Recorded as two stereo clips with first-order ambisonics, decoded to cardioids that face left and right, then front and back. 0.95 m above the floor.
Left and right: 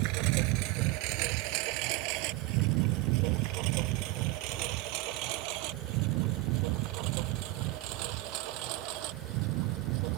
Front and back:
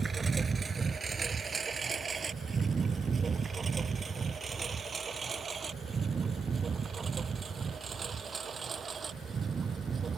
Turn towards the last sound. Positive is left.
turn(degrees=-110)